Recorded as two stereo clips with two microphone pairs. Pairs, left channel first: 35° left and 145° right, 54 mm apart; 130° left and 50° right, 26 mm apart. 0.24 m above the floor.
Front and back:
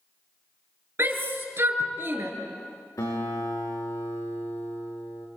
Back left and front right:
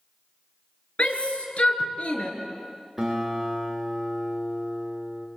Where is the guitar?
30° left, 6.5 m.